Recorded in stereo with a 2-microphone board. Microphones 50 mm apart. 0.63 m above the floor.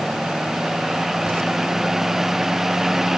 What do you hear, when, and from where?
Only background noise.